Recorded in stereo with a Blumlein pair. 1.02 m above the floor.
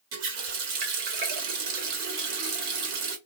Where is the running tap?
45° right, 1.0 m.